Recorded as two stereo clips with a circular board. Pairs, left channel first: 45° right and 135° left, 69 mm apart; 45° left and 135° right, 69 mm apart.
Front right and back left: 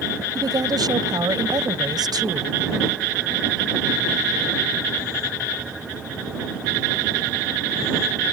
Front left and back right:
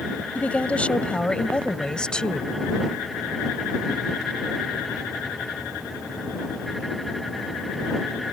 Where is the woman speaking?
115° left; by 2.5 s 125° left.